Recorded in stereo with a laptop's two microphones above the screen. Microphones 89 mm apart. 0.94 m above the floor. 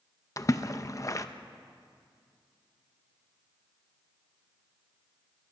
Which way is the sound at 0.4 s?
40° left (ahead or behind).